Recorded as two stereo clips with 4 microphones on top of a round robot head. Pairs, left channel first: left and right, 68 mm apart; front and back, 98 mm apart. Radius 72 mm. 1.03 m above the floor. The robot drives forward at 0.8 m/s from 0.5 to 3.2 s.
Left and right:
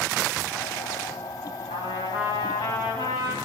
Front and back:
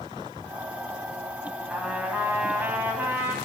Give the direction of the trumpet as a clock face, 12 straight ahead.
9 o'clock.